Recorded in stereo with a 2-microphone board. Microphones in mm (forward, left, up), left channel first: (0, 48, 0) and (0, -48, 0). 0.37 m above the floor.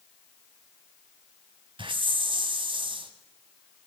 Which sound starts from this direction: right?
A hiss, at 1.8 s.